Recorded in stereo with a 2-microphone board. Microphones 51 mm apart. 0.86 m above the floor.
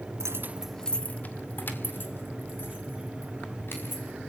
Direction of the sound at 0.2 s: 65° right (ahead or behind).